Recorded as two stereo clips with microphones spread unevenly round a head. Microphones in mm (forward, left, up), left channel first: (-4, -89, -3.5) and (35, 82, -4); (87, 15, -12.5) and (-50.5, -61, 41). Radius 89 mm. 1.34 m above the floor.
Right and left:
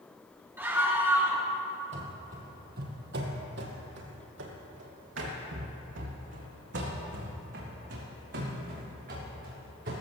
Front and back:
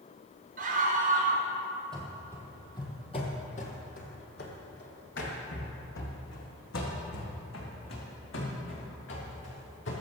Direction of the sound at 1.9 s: 130° left.